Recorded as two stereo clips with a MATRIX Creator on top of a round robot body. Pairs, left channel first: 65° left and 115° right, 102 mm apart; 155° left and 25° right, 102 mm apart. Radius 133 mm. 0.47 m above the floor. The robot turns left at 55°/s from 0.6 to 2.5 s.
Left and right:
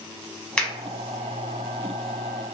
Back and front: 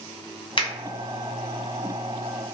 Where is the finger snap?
145° left, 1.1 m; by 0.7 s 140° left, 1.1 m.